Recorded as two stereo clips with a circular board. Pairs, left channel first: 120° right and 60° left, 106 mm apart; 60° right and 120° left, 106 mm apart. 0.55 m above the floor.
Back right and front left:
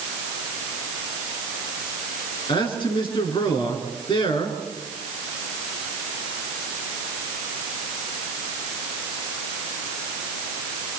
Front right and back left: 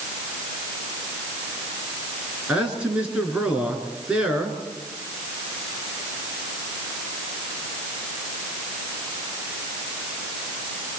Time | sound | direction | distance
2.5 | a man speaking | 160° right | 7 m